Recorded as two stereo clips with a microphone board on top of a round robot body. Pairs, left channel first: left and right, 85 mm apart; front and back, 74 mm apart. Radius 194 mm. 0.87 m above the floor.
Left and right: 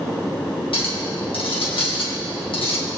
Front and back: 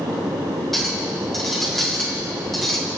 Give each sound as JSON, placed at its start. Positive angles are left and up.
{"t": 0.7, "sound": "a clink", "azimuth_deg": 85, "distance_m": 3.0}